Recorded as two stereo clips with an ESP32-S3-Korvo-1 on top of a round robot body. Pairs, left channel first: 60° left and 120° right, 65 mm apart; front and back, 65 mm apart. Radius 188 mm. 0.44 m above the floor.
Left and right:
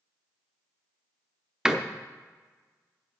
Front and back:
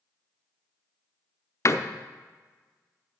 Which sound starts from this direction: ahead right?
A door slam, at 1.6 s.